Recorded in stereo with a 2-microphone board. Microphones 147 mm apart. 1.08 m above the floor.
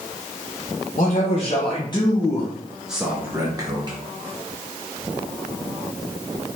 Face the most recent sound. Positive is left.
turn(degrees=-35)  # may be behind; listen again after turning